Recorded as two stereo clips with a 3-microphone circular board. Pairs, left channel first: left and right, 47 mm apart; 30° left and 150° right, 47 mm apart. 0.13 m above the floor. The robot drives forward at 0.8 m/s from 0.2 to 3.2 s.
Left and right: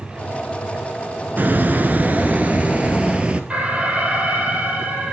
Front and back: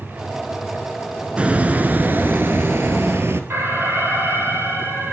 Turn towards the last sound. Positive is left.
turn(degrees=-150)